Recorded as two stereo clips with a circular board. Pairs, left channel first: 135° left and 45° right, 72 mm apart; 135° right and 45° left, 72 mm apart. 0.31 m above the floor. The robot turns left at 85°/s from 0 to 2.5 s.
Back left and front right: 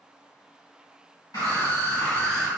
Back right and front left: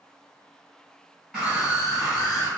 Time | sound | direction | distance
1.3 | a scream | 135° left | 1.9 m